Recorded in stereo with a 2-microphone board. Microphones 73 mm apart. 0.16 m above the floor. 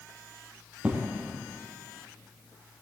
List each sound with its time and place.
0.8 s an explosion: 15° right (ahead or behind), 3 m